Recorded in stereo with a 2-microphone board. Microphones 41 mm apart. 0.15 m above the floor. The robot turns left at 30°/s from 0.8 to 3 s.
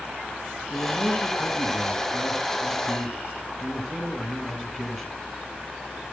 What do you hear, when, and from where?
0.7 s a man speaking: 95° left, 1.8 m; by 5.2 s 30° left, 1.8 m